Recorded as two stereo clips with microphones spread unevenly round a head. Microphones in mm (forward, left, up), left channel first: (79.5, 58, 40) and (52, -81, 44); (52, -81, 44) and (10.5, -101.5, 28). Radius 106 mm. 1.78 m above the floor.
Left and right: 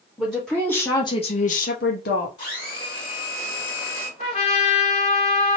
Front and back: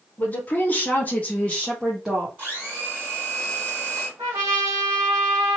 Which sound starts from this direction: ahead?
A woman speaking, at 0.2 s.